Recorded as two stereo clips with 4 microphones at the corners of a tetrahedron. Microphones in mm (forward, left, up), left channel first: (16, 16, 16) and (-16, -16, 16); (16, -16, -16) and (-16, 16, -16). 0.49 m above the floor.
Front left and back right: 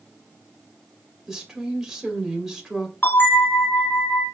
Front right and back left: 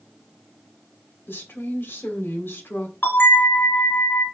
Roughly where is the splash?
No splash in this recording.